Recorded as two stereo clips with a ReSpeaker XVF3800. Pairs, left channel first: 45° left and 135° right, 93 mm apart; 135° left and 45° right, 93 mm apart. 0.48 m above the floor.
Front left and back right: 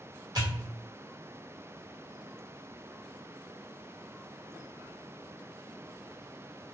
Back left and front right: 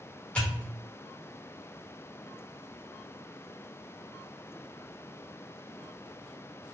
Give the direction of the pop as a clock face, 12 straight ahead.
5 o'clock.